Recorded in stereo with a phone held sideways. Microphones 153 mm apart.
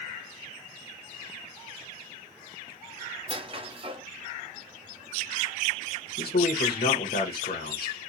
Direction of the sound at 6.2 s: 80° left.